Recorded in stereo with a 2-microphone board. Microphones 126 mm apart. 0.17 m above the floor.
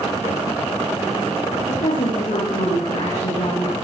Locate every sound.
1.7 s a woman speaking: 80° left, 9.5 m